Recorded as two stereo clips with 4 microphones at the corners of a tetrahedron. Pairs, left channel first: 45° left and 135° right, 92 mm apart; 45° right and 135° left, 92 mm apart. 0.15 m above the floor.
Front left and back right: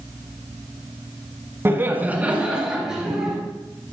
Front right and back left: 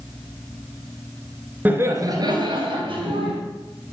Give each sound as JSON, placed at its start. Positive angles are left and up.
{"t": 1.6, "sound": "laughter", "azimuth_deg": -175, "distance_m": 1.2}